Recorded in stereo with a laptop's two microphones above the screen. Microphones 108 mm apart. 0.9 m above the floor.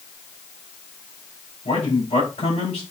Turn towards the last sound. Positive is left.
turn(degrees=75)  # may be behind; listen again after turning